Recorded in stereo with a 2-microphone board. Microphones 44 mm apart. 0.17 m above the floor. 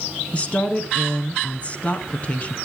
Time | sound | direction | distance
0.3 | a woman speaking | 30° left (ahead or behind) | 1.7 m